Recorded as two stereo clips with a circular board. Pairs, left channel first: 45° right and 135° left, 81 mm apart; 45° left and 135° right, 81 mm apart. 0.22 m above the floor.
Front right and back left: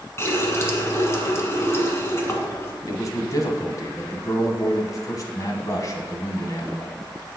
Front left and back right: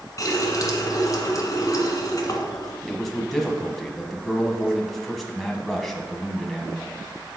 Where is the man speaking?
45° right, 1.3 m.